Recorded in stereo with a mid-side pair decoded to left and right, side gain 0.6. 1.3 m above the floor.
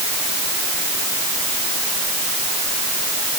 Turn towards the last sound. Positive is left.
No sound to turn to.